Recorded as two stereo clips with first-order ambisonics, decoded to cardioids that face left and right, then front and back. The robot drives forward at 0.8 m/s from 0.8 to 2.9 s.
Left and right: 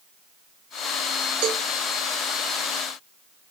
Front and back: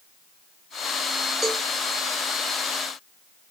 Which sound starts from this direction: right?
A cowbell, at 1.4 s.